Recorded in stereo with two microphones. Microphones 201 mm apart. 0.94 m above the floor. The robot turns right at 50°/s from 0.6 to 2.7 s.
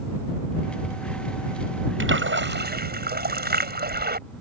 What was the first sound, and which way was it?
A splash, 90° right.